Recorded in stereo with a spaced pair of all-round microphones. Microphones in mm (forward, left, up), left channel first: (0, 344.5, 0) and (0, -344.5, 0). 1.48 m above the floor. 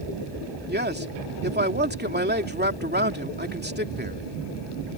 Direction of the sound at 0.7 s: 15° right (ahead or behind).